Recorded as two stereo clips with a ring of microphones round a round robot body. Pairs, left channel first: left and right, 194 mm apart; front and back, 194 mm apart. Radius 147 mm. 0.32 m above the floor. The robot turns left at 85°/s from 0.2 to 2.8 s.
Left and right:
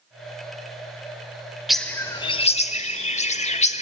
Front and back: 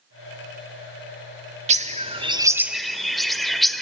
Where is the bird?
175° right, 0.8 m; by 3.8 s 90° left, 0.8 m.